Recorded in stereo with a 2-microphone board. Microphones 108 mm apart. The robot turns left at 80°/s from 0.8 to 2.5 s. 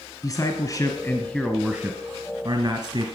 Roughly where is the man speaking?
Ahead left.